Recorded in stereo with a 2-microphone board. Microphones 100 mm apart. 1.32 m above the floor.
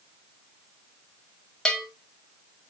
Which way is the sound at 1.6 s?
10° left (ahead or behind).